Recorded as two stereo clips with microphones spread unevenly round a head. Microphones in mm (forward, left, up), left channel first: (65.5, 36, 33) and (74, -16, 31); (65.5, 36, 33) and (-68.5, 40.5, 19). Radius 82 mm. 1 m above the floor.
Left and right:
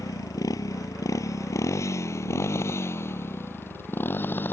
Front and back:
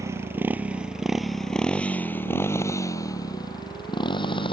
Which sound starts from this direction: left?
A motorcycle, at 0.0 s.